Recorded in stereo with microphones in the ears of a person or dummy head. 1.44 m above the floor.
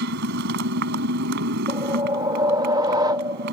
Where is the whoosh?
20° right (ahead or behind).